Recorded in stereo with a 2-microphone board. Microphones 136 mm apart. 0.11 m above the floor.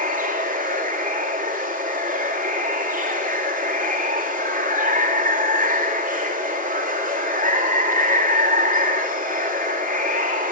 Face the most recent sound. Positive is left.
turn(degrees=-70)  # may be behind; listen again after turning